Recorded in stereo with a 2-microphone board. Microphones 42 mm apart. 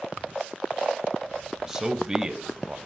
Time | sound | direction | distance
1.7 | a man speaking | 15° right (ahead or behind) | 1.2 m